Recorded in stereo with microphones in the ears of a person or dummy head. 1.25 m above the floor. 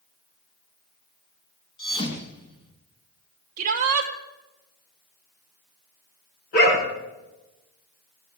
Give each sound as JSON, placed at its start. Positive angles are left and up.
{"t": 1.8, "sound": "a thud", "side_deg": 25, "distance_m": 2.5}
{"t": 3.6, "sound": "a shout", "side_deg": -45, "distance_m": 1.3}
{"t": 6.5, "sound": "a dog barking", "side_deg": 50, "distance_m": 5.0}